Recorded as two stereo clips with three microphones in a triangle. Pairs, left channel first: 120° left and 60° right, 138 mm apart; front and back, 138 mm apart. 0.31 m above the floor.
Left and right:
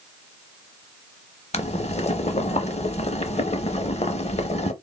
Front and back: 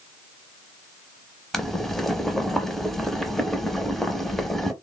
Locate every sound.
1.5 s boiling: 90° left, 0.5 m